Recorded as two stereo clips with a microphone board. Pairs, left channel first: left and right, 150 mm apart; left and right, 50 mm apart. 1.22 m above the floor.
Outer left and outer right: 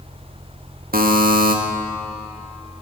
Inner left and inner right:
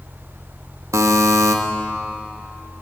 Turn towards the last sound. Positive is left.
turn(degrees=-80)